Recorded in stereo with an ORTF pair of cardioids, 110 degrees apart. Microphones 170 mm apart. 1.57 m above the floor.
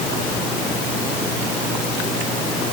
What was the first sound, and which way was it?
Only background noise.